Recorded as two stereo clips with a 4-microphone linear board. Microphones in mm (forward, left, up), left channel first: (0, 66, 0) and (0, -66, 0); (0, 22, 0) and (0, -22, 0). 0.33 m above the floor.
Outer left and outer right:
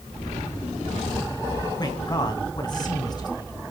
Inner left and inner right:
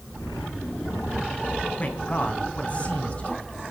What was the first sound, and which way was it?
A man speaking, 35° left (ahead or behind).